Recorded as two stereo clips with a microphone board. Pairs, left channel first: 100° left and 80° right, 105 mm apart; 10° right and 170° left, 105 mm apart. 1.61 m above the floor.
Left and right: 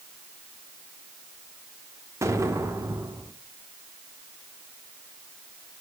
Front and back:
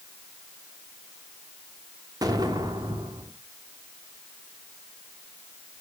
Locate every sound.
2.2 s an explosion: 140° right, 1.2 m